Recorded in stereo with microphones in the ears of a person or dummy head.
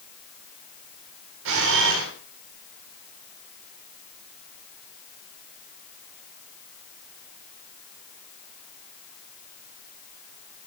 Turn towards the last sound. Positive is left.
turn(degrees=-70)  # may be behind; listen again after turning